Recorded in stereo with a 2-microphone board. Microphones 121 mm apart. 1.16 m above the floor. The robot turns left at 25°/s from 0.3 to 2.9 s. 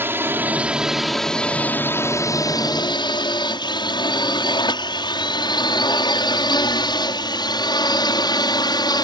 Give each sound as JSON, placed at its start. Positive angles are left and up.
{"t": 0.0, "sound": "a drone", "side_deg": -20}